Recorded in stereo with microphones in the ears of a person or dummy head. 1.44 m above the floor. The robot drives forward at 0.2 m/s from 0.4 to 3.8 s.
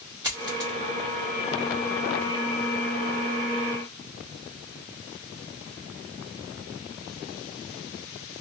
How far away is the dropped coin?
About 0.8 m.